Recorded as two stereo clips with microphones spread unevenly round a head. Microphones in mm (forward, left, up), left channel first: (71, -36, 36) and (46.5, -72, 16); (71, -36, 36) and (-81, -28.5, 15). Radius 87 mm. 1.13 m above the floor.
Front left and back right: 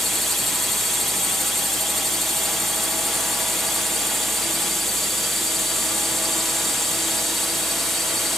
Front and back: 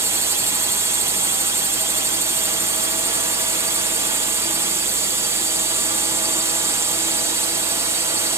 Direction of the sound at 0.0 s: 160° right.